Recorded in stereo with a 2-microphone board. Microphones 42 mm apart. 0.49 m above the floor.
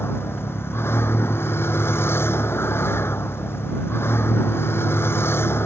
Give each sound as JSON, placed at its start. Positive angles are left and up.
{"t": 0.0, "sound": "a vehicle", "side_deg": 80}